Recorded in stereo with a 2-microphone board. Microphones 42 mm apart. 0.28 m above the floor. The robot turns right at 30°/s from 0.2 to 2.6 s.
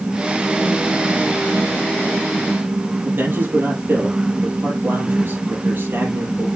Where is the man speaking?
50° right (ahead or behind), 5.5 m.